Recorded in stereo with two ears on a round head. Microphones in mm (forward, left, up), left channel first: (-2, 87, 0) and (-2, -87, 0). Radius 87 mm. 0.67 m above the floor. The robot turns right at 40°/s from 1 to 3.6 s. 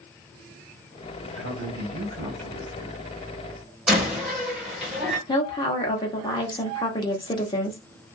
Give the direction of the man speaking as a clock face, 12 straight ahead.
3 o'clock.